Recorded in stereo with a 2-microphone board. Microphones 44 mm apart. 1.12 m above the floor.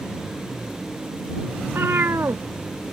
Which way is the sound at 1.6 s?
65° right (ahead or behind).